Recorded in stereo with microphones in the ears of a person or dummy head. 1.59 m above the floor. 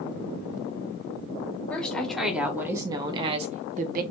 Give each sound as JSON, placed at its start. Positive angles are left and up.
{"t": 1.7, "sound": "a woman speaking", "side_deg": 10, "distance_m": 1.6}